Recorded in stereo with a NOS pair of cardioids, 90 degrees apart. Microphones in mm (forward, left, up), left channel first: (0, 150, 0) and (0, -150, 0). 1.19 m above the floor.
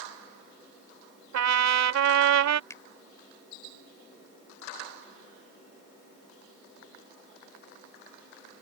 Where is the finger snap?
10° left.